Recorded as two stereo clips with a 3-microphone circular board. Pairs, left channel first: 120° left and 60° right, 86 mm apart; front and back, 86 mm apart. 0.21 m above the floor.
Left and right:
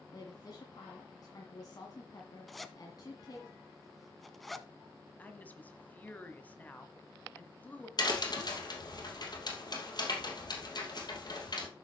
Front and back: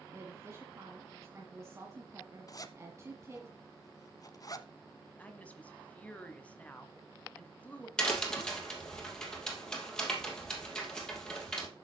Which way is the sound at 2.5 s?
30° left.